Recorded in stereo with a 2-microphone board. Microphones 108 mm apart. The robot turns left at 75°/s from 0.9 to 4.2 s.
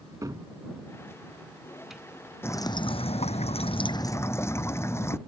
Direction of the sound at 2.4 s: 160° left.